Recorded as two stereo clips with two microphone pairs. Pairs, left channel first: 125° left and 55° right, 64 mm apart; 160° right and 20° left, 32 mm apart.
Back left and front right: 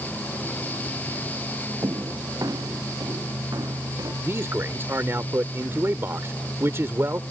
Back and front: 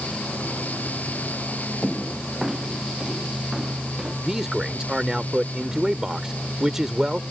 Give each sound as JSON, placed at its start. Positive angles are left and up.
{"t": 1.8, "sound": "footsteps", "azimuth_deg": -70}
{"t": 4.2, "sound": "a man speaking", "azimuth_deg": -50}